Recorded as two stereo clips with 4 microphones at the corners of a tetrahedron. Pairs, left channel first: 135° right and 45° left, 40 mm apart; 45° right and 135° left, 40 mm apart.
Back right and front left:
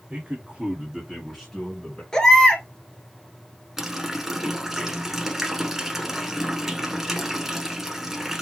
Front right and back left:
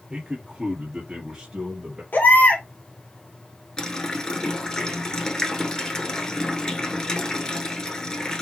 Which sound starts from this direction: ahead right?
A baby crying, at 2.1 s.